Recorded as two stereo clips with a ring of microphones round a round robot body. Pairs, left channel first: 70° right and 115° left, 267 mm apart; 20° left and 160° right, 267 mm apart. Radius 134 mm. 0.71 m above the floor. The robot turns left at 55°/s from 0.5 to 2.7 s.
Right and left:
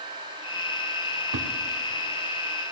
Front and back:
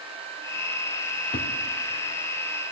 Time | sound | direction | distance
1.3 | a thud | 85° left | 1.3 m